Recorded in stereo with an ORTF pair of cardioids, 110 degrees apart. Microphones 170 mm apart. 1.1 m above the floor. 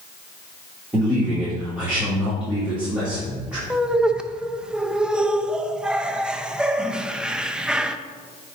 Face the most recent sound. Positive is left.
turn(degrees=-5)